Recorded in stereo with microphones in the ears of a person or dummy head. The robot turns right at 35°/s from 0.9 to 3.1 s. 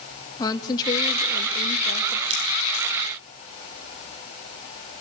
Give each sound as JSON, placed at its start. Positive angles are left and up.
{"t": 0.4, "sound": "a woman speaking", "azimuth_deg": 20, "distance_m": 1.9}
{"t": 2.3, "sound": "scissors", "side_deg": -30, "distance_m": 6.0}